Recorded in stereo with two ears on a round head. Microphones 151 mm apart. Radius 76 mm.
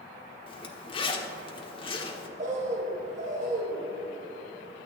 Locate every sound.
0.5 s a zipper: 30° left (ahead or behind), 1.1 m
2.4 s a bird: 50° right (ahead or behind), 2.5 m